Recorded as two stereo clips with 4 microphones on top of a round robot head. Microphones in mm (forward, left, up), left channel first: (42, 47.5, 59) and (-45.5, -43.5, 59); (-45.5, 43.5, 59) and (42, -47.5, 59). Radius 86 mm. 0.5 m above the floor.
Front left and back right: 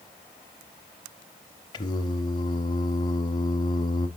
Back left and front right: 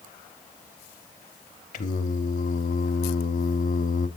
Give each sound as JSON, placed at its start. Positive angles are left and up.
{"t": 1.7, "sound": "singing", "azimuth_deg": 105, "distance_m": 0.7}